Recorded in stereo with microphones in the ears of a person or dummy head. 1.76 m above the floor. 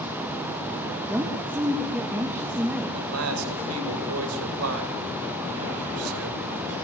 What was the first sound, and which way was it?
A woman speaking, 10° right (ahead or behind).